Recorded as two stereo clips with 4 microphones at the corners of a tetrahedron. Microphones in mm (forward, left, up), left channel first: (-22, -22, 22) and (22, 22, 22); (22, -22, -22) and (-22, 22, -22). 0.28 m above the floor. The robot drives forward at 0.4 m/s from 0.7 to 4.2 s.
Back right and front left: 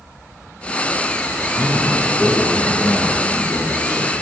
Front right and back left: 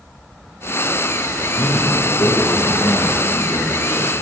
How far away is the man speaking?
About 4.5 m.